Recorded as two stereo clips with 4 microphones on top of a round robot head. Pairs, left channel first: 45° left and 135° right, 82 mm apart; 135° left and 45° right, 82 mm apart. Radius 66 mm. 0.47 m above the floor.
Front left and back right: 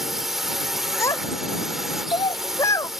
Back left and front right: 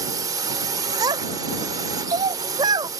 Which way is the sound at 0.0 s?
50° right.